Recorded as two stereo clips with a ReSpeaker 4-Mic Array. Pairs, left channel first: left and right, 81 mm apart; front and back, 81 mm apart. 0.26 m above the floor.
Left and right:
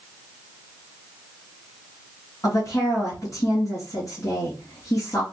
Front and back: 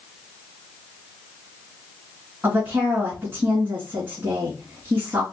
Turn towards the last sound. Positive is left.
turn(degrees=125)